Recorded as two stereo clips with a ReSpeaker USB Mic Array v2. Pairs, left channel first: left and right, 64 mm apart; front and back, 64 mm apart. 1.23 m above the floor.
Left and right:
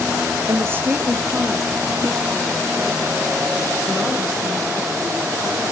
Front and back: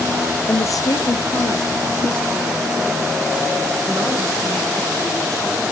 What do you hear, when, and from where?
0.5 s a woman speaking: 55° right, 0.6 m; by 5.7 s 20° left, 6 m